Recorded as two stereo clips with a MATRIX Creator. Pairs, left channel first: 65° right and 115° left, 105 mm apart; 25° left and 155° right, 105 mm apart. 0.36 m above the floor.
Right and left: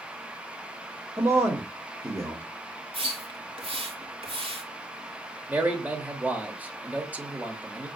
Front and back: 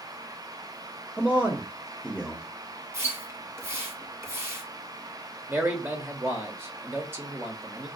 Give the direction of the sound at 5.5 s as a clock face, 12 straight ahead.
6 o'clock.